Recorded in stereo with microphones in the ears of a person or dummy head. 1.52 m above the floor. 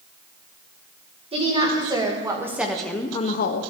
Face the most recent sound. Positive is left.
turn(degrees=70)  # may be behind; listen again after turning